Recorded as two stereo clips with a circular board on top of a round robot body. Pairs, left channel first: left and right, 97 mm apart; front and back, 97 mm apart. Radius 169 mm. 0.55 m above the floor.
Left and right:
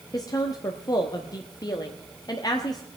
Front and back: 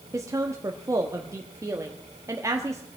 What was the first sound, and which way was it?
A woman speaking, 130° left.